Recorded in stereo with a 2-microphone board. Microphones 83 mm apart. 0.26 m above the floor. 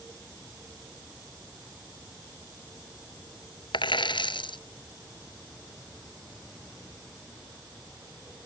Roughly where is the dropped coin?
Left.